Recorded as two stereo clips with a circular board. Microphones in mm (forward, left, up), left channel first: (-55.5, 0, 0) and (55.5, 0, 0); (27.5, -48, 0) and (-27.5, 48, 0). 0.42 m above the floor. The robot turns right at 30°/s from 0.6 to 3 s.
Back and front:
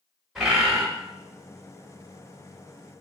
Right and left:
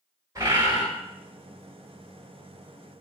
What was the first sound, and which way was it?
A bird, 80° left.